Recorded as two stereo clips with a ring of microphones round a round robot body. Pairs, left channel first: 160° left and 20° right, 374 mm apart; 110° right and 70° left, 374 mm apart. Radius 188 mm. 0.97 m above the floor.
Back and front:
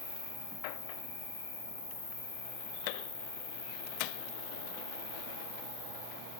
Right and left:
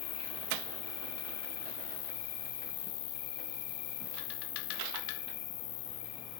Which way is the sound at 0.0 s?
120° right.